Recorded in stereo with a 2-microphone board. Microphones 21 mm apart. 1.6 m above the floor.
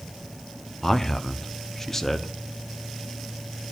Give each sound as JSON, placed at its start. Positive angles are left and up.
{"t": 0.8, "sound": "a man speaking", "side_deg": 20, "distance_m": 1.0}